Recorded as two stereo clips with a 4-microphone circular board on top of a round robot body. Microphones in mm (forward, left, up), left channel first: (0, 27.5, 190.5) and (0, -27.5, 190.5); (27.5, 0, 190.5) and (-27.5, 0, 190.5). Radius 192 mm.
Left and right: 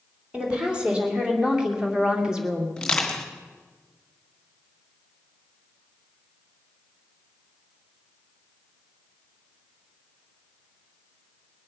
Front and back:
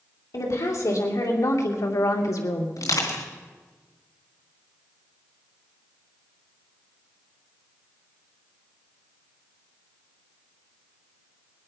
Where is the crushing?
10° left, 3 m.